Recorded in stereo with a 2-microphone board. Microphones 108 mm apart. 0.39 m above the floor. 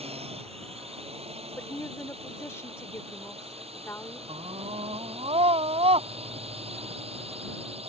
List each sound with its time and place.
0.0 s a drone: 70° right (ahead or behind)
1.6 s a woman speaking: 25° left (ahead or behind)
4.3 s a scream: 70° right (ahead or behind)